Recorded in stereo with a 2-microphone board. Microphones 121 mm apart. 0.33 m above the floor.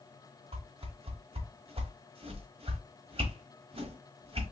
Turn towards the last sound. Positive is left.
turn(degrees=-50)  # may be behind; listen again after turning